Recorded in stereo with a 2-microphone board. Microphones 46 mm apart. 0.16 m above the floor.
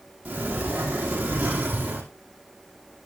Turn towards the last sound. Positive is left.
turn(degrees=-35)  # may be behind; listen again after turning